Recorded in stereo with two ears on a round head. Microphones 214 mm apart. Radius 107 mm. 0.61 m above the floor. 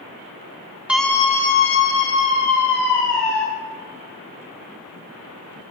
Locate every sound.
0.9 s a scream: 5° right (ahead or behind), 1.0 m; by 3.4 s 75° left (ahead or behind), 3 m